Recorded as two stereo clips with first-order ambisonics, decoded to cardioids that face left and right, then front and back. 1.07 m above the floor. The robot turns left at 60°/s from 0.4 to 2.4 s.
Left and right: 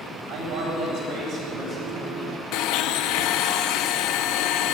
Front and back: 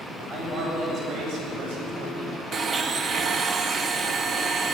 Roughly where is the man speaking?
Right.